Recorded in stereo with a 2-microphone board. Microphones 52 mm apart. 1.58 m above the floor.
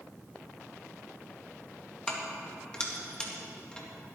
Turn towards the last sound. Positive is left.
turn(degrees=15)  # may be behind; listen again after turning